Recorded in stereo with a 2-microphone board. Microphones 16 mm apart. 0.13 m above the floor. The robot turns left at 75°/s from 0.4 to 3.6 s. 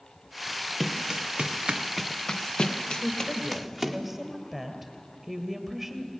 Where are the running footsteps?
5° right (ahead or behind), 1.5 m; by 4.0 s centre (ahead or behind), 2.5 m.